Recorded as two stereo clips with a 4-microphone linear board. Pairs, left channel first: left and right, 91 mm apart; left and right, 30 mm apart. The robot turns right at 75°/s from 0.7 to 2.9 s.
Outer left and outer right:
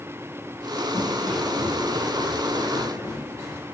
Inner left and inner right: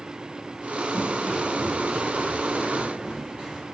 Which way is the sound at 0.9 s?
40° left (ahead or behind).